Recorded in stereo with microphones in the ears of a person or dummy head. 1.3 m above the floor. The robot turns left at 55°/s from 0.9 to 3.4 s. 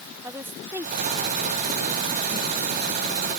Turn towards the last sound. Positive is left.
turn(degrees=-150)